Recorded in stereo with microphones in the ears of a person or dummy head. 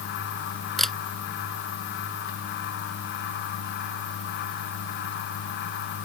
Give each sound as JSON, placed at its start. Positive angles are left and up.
{"t": 0.8, "sound": "a camera shutter", "side_deg": 5}